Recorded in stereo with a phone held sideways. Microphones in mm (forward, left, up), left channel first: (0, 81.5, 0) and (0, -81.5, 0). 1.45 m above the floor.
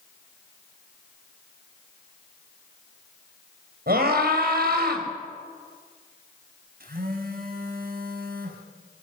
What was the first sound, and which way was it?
A scream, 75° right (ahead or behind).